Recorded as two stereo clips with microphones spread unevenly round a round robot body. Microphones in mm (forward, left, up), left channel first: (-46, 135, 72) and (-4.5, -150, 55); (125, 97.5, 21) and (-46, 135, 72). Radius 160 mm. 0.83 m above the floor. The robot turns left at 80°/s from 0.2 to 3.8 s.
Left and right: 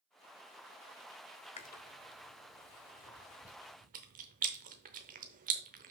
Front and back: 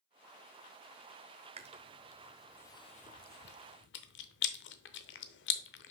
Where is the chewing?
160° left, 0.6 m; by 5.9 s 20° right, 0.6 m.